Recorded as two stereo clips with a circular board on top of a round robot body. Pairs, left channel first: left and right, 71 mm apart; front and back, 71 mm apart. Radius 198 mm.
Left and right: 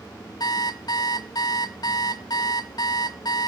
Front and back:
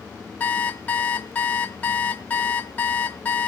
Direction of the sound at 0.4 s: 65° left.